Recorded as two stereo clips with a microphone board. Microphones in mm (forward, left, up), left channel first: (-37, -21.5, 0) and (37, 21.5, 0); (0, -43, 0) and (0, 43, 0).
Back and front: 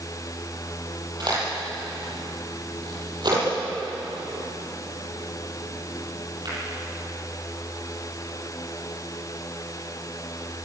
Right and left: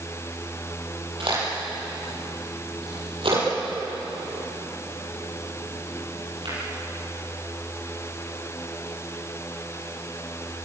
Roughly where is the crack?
Left.